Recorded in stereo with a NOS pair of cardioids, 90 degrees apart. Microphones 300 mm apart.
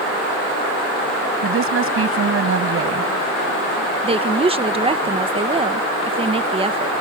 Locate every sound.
1.4 s a woman speaking: 45° right
4.0 s a woman speaking: 20° right